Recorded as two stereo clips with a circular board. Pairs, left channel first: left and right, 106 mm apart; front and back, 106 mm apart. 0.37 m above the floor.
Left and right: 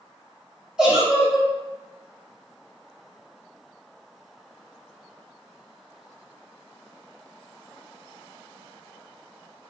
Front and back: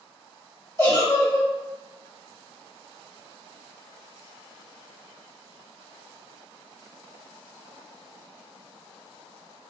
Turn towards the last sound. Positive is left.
turn(degrees=-15)